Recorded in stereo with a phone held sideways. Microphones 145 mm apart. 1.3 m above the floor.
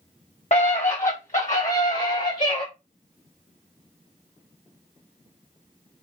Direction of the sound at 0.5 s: 55° left (ahead or behind).